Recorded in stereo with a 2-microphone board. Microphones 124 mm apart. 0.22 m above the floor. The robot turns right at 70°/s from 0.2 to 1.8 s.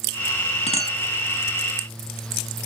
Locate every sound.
0.7 s a clink: 55° left (ahead or behind), 1.1 m